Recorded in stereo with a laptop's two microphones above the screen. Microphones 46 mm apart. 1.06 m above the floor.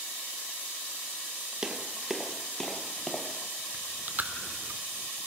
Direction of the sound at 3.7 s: 45° right (ahead or behind).